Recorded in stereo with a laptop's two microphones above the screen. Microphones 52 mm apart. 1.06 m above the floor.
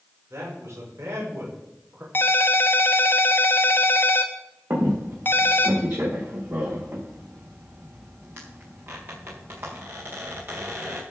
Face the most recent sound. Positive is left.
turn(degrees=-40)  # may be behind; listen again after turning